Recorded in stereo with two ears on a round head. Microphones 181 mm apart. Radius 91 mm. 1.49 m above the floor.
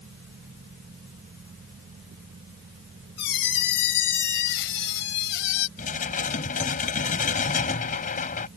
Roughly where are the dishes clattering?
Left.